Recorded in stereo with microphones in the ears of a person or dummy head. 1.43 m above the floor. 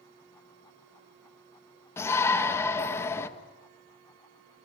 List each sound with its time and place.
2.0 s a shout: 15° left (ahead or behind), 1.8 m